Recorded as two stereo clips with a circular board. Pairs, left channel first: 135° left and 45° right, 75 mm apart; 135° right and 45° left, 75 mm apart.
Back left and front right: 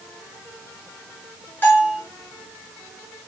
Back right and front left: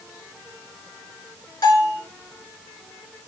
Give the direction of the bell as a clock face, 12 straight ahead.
6 o'clock.